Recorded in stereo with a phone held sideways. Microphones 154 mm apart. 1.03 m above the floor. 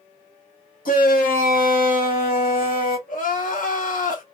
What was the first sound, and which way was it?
A shout, 75° left (ahead or behind).